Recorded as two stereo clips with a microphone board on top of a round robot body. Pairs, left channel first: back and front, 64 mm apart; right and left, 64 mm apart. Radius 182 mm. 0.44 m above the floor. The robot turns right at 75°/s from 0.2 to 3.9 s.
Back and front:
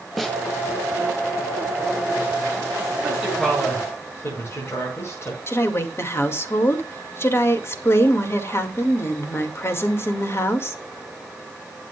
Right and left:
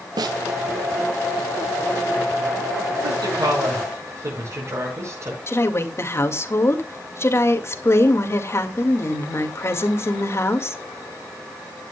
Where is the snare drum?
90° left, 0.5 m; by 0.4 s 105° left, 0.5 m.